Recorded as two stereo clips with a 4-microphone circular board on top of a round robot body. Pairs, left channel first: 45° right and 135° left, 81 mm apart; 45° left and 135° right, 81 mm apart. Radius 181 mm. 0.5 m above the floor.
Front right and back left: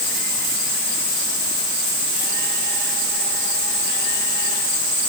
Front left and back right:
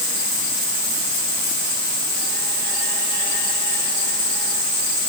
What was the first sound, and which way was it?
Only background noise.